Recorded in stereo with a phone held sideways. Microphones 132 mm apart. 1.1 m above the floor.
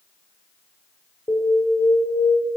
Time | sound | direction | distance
1.3 | an alarm | 25° left (ahead or behind) | 4 m